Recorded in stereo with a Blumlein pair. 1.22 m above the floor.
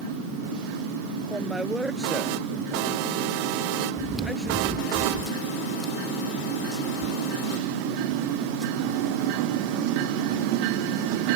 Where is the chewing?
5° right.